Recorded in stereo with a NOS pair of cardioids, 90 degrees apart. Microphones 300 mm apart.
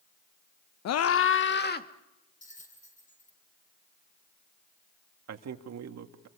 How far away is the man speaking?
About 2.5 m.